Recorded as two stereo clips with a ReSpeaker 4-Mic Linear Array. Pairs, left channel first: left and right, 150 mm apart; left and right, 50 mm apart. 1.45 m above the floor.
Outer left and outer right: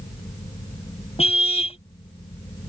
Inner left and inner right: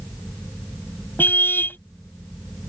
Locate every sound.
1.2 s a car horn: 45° left (ahead or behind)